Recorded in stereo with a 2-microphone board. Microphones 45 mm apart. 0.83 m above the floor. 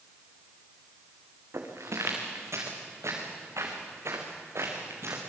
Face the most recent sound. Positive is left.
turn(degrees=-60)  # may be behind; listen again after turning